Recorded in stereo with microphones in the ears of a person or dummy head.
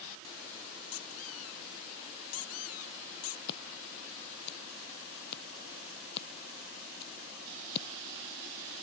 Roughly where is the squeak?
Left.